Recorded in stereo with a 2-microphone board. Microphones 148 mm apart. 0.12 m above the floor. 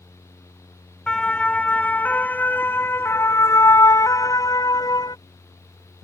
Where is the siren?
5° left (ahead or behind); by 5.2 s 25° left (ahead or behind).